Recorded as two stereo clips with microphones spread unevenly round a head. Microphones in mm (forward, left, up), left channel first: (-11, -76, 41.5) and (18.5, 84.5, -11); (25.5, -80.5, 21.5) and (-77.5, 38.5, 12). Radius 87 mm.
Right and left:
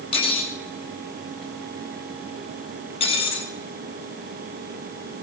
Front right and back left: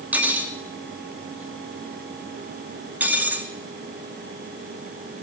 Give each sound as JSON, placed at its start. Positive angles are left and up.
{"t": 0.1, "sound": "cutlery clinking", "azimuth_deg": -150, "distance_m": 2.5}